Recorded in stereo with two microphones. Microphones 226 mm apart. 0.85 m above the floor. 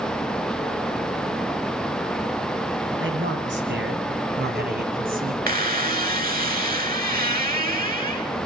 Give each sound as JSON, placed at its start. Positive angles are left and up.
{"t": 3.0, "sound": "a man speaking", "side_deg": -60, "distance_m": 8.0}
{"t": 5.5, "sound": "a squeak", "side_deg": -40, "distance_m": 2.0}